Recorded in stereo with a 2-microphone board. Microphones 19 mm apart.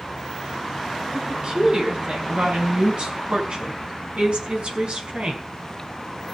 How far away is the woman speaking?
About 6 m.